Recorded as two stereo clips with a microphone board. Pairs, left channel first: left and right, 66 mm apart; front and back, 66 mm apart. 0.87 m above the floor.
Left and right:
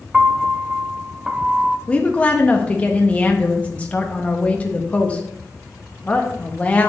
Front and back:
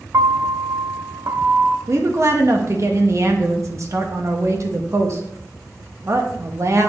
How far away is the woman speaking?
About 1.1 m.